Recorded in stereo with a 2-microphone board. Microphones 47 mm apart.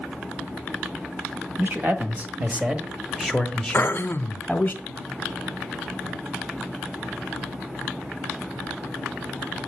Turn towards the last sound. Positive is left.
turn(degrees=50)  # may be behind; listen again after turning